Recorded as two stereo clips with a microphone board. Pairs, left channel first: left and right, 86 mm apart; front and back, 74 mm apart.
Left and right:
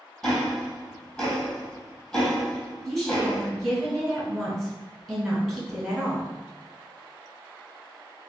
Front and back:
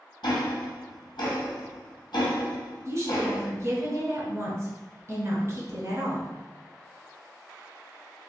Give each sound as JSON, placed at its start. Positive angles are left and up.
{"t": 0.2, "sound": "ticking", "azimuth_deg": 10, "distance_m": 0.9}
{"t": 2.9, "sound": "a woman speaking", "azimuth_deg": 175, "distance_m": 1.3}